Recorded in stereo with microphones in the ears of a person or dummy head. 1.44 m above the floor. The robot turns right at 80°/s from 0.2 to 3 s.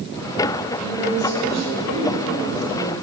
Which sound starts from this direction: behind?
A woman speaking, at 0.8 s.